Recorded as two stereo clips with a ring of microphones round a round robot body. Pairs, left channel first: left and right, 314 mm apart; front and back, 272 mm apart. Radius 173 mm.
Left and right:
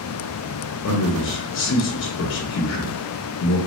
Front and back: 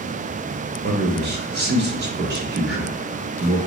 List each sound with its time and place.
0.8 s a man speaking: 135° left, 0.8 m